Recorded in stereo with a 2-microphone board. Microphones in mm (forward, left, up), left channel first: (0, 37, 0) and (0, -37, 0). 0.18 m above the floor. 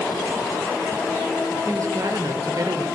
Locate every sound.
1.7 s a woman speaking: 45° right (ahead or behind), 4 m; by 2.9 s 55° right (ahead or behind), 3.5 m